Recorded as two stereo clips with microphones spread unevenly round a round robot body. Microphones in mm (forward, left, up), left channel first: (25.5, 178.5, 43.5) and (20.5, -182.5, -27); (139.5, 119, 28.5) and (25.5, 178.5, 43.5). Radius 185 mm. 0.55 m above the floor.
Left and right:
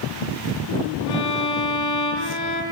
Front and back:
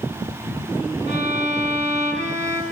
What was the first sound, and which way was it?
A violin, 125° left.